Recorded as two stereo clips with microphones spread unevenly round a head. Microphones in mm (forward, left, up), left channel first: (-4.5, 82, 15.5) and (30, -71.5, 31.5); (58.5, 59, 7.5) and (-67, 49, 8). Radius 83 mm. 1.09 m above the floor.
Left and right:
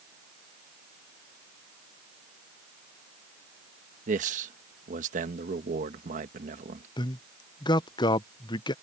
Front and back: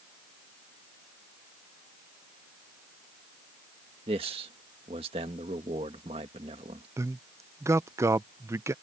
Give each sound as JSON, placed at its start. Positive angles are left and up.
{"t": 4.1, "sound": "a man speaking", "azimuth_deg": -120}
{"t": 7.0, "sound": "a man speaking", "azimuth_deg": 130}